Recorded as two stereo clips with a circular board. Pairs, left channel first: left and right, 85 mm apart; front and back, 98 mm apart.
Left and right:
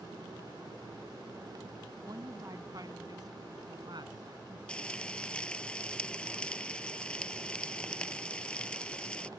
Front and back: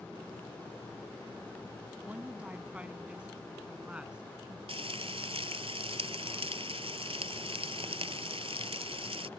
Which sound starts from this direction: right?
A woman speaking, at 2.0 s.